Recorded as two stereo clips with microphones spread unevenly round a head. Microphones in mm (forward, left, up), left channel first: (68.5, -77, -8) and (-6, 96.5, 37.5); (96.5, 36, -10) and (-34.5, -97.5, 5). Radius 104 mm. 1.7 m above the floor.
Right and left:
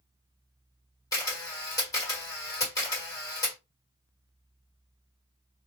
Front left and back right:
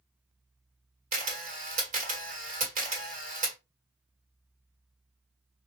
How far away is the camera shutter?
About 1.8 m.